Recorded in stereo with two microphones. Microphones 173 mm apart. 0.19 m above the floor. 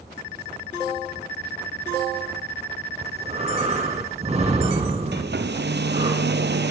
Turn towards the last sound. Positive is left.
turn(degrees=-80)